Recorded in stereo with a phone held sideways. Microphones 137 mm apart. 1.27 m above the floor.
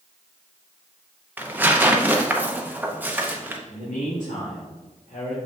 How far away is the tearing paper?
About 0.7 m.